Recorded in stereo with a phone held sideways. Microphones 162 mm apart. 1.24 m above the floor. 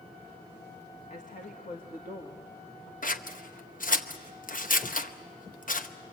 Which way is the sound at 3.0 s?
55° left (ahead or behind).